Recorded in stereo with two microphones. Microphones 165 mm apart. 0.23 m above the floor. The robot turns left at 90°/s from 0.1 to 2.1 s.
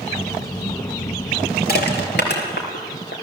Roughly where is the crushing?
Left.